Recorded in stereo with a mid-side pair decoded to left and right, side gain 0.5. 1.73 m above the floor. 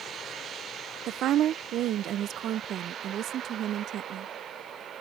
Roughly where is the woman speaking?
Ahead right.